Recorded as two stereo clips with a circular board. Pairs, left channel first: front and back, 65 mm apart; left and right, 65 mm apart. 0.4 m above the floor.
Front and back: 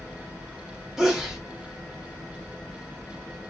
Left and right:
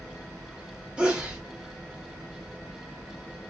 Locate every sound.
1.0 s a sneeze: 120° right, 0.9 m